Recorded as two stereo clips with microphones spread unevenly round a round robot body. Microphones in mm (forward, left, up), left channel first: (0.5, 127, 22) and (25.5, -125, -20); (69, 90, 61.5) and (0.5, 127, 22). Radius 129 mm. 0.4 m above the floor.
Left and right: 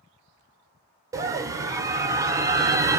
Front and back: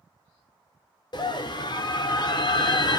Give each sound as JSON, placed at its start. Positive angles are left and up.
{"t": 1.1, "sound": "a scream", "azimuth_deg": -45, "distance_m": 1.1}